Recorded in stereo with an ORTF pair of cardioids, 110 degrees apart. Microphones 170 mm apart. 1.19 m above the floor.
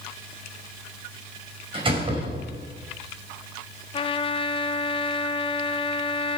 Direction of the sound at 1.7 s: 30° right.